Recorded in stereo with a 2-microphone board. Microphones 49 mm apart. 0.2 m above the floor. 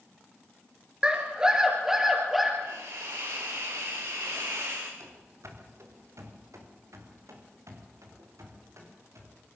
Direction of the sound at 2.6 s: 75° right (ahead or behind).